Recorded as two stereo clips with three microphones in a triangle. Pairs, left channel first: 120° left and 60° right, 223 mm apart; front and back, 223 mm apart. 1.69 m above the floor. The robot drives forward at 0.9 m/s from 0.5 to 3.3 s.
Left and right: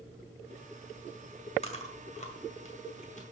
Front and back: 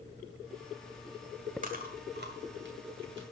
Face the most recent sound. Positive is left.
turn(degrees=170)